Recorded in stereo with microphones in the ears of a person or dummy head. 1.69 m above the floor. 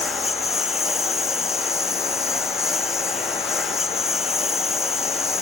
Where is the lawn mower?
5° right (ahead or behind).